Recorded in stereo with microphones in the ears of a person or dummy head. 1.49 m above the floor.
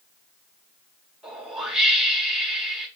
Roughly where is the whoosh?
Centre.